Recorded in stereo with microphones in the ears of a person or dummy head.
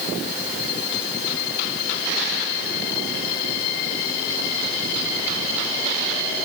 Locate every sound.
Only background noise.